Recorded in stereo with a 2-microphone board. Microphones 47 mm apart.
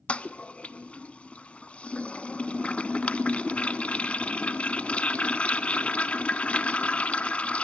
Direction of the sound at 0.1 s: 30° left (ahead or behind).